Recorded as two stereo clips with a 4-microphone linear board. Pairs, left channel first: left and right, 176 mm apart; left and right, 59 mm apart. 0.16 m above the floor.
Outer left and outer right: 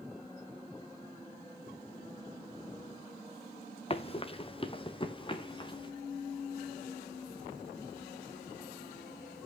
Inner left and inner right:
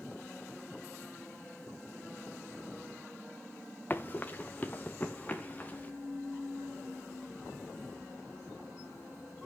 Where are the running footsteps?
35° left (ahead or behind), 1.0 m; by 5.9 s 25° left (ahead or behind), 2 m.